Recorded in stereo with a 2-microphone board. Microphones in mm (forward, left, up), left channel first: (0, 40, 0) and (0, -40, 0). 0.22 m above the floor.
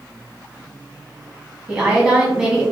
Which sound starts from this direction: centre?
A woman speaking, at 1.7 s.